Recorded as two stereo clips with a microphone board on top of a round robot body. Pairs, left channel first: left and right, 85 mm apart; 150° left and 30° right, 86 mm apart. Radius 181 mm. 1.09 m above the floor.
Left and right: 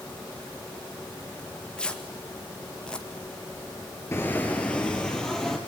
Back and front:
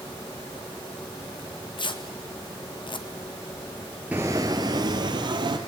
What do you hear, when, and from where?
1.4 s tearing paper: 170° left, 2 m
4.1 s footsteps: 40° left, 1.1 m; by 5.6 s 5° left, 1.9 m